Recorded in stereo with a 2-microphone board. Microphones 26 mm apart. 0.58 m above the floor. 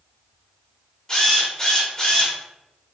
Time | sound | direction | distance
1.1 | a drill | 25° left (ahead or behind) | 1.0 m